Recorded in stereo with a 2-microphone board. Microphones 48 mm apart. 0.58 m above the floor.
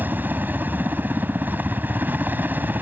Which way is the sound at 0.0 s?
45° right (ahead or behind).